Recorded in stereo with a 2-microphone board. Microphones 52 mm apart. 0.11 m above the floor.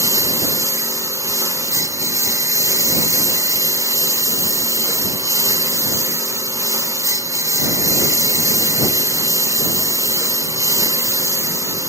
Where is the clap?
I don't hear a clap.